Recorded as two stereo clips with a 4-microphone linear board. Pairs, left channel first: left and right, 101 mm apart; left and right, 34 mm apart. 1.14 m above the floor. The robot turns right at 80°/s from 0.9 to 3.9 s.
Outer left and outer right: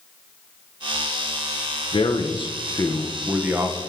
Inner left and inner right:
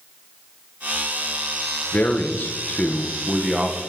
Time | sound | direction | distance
1.9 | a man speaking | 70° left | 0.7 m